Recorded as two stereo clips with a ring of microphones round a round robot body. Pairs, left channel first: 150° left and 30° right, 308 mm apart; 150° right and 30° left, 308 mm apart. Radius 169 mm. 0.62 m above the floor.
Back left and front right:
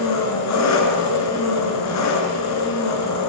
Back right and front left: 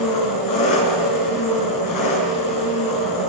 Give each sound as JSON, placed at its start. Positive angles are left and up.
{"t": 0.0, "sound": "an engine running", "azimuth_deg": -175, "distance_m": 7.0}